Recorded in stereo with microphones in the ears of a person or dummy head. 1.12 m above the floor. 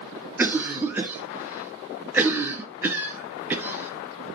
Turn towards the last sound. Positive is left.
turn(degrees=-15)  # may be behind; listen again after turning